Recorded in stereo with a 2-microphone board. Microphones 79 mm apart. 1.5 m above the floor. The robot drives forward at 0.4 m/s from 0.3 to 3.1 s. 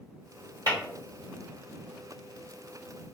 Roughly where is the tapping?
Right.